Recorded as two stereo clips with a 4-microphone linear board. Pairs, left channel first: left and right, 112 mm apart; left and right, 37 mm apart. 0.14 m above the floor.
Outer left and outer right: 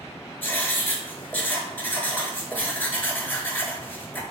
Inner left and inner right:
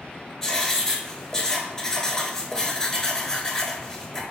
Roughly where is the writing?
Centre.